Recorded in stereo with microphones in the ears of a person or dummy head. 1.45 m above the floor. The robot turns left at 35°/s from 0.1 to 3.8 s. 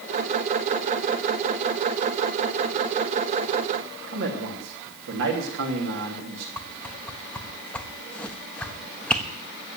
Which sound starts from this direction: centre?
A whoosh, at 6.6 s.